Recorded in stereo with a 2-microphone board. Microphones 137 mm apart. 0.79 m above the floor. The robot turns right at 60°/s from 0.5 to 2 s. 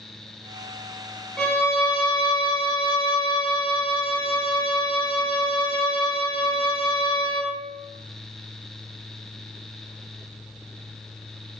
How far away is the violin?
About 0.6 m.